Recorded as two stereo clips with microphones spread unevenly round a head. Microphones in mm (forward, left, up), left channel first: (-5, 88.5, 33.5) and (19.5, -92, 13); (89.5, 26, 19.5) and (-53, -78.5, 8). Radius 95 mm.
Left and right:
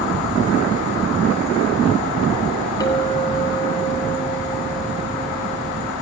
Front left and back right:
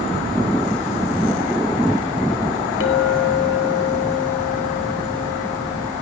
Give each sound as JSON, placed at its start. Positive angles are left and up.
{"t": 2.8, "sound": "a clink", "azimuth_deg": 30, "distance_m": 4.5}